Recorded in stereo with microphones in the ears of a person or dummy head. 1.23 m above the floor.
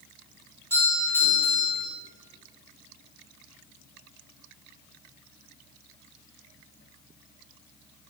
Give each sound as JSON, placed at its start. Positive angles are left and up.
{"t": 0.7, "sound": "a doorbell", "side_deg": 15, "distance_m": 3.5}